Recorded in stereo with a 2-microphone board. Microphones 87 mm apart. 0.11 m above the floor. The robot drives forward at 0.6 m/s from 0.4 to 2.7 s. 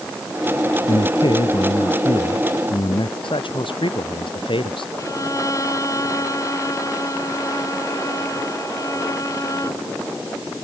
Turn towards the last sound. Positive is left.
turn(degrees=40)  # may be behind; listen again after turning